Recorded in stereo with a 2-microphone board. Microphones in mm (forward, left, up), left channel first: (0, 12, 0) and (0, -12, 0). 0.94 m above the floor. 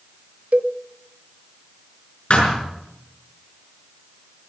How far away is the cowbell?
About 0.8 m.